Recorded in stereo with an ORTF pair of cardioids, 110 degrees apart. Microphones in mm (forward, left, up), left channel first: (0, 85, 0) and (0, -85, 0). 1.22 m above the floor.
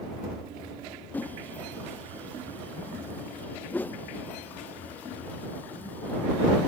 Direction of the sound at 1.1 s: 10° left.